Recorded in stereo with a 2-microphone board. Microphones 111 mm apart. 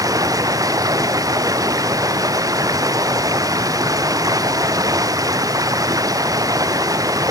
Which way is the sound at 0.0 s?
30° right (ahead or behind).